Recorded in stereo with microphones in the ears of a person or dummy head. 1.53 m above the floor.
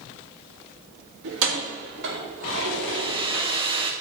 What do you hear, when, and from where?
1.2 s keys jangling: 70° right (ahead or behind), 1.8 m; by 3.9 s 25° right (ahead or behind), 3 m
2.9 s a hair dryer: 25° right (ahead or behind), 0.6 m